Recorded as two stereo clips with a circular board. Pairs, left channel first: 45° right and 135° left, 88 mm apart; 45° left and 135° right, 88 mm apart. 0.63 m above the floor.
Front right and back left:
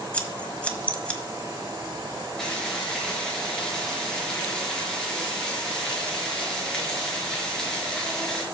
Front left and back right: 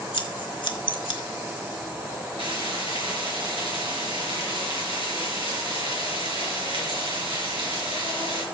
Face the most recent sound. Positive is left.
turn(degrees=-125)